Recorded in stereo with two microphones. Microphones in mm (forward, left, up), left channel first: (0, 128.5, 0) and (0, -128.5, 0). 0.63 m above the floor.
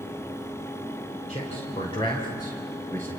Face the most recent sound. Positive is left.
turn(degrees=10)  # may be behind; listen again after turning